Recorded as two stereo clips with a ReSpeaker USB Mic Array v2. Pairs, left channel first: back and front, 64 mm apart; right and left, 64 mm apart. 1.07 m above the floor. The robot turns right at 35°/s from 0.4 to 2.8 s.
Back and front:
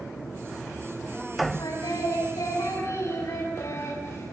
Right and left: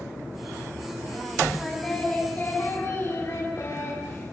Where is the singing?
Straight behind, 7.5 m; by 4.3 s 140° right, 7.5 m.